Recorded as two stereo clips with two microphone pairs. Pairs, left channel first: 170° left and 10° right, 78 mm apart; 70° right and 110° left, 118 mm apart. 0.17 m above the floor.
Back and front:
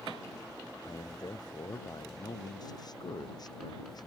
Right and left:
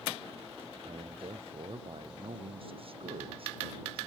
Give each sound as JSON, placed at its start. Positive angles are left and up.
{"t": 0.8, "sound": "a man speaking", "azimuth_deg": 145}